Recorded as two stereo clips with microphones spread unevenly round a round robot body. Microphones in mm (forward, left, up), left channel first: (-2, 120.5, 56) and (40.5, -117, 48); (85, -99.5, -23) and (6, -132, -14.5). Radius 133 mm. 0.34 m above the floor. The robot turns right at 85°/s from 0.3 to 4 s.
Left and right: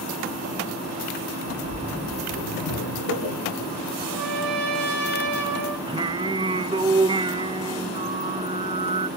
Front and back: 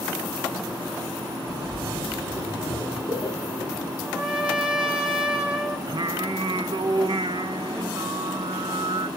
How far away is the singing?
About 0.5 m.